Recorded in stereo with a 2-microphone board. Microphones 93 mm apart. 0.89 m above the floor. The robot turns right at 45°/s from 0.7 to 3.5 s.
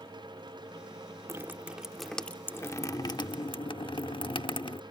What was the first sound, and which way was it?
Dripping, 30° right.